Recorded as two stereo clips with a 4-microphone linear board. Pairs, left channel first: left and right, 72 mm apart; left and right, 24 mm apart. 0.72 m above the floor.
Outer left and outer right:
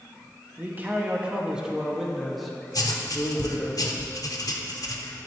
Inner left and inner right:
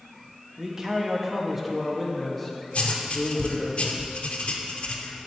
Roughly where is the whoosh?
No whoosh in this recording.